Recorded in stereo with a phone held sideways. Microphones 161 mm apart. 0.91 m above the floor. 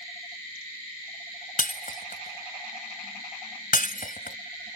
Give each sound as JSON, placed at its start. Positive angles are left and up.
{"t": 1.6, "sound": "breaking glass", "side_deg": 60}